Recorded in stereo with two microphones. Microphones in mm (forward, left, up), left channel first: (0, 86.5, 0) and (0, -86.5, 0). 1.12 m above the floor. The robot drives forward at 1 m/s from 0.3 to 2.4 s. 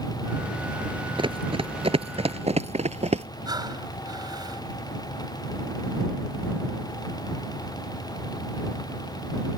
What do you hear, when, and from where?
1.2 s running footsteps: 30° right (ahead or behind); by 3.3 s 40° right (ahead or behind)
3.5 s breathing: 25° right (ahead or behind)